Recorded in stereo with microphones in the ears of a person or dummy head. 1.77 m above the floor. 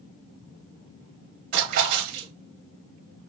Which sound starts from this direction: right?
A splash, at 1.5 s.